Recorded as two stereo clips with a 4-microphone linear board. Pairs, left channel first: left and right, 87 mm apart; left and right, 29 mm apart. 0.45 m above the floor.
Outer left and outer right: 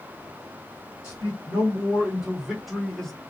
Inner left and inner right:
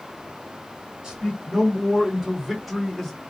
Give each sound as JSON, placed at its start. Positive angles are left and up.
{"t": 1.0, "sound": "a man speaking", "side_deg": -25, "distance_m": 1.9}